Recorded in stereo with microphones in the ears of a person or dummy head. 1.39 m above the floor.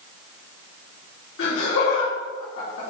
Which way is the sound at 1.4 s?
80° left.